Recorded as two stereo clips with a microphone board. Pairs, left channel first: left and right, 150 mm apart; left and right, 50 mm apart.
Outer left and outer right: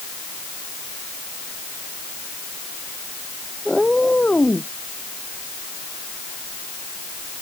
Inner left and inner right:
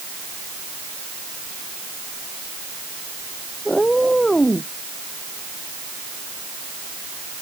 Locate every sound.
3.6 s a cat meowing: centre (ahead or behind); by 4.7 s 10° left (ahead or behind)